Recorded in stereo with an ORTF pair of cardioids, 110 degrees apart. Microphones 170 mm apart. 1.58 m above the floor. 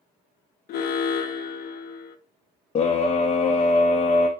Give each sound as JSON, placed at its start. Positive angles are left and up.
{"t": 0.7, "sound": "an alarm", "azimuth_deg": 70, "distance_m": 0.6}
{"t": 2.8, "sound": "a scream", "azimuth_deg": 35, "distance_m": 0.6}